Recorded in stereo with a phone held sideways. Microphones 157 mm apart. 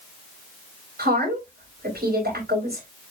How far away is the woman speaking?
About 4.5 m.